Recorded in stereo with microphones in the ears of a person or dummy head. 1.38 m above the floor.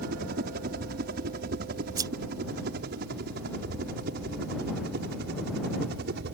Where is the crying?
No crying in this recording.